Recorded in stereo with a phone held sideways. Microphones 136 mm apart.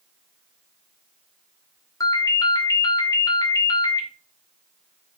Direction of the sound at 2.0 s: 25° left (ahead or behind).